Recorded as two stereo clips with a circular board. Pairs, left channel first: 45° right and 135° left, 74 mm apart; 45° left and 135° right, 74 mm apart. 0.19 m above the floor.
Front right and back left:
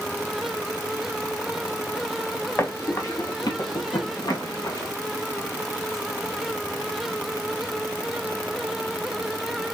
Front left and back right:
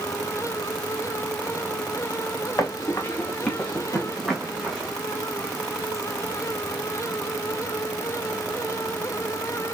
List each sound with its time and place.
2.6 s running footsteps: 5° left, 1.6 m; by 4.9 s 50° right, 3.5 m